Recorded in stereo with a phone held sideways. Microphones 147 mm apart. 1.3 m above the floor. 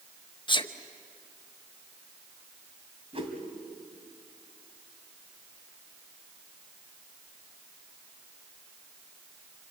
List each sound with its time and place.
0.5 s a sneeze: 35° left (ahead or behind), 1.1 m
3.1 s a whoosh: 40° right (ahead or behind), 2.5 m